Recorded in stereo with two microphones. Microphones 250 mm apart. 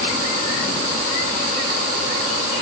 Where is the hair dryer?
I don't hear a hair dryer.